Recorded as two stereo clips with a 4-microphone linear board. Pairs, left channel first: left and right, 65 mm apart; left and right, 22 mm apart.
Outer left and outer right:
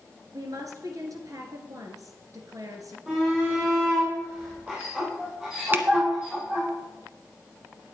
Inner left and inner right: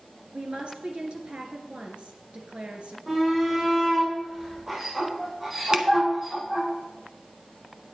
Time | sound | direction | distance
0.3 | a woman speaking | 60° right (ahead or behind) | 2 m
3.1 | a shout | 20° right (ahead or behind) | 5 m
5.7 | a finger snap | 30° right (ahead or behind) | 0.9 m